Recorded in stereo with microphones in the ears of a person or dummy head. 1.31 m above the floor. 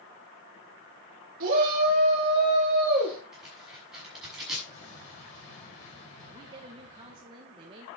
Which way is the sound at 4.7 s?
45° left (ahead or behind).